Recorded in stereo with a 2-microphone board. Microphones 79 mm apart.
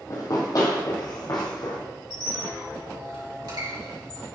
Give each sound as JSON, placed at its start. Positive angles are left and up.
{"t": 0.1, "sound": "running footsteps", "side_deg": 45, "distance_m": 1.7}
{"t": 2.1, "sound": "a squeak", "side_deg": -65, "distance_m": 2.5}